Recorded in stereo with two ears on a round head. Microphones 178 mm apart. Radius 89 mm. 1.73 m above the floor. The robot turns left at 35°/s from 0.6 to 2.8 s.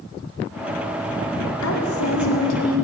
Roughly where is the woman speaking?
Left.